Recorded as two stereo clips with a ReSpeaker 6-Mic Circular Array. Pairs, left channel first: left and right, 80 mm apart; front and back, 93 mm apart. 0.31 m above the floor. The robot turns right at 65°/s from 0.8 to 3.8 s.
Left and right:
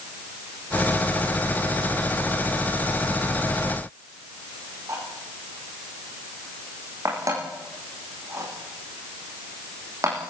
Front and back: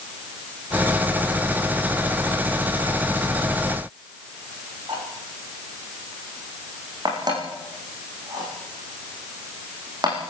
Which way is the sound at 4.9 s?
140° right.